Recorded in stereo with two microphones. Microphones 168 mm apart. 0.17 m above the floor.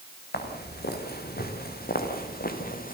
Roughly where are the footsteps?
Left.